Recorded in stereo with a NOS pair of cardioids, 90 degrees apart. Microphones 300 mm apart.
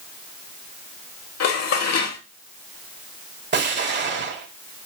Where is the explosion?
35° right, 2 m.